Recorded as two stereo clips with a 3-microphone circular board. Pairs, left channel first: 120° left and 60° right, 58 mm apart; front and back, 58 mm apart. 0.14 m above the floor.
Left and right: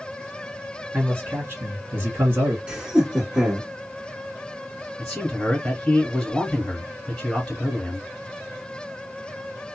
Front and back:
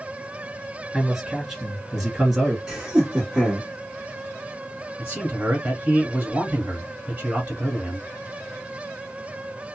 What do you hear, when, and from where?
0.9 s a man speaking: 95° right, 2 m
2.7 s laughter: 115° right, 1.2 m
5.0 s a man speaking: 175° right, 1.5 m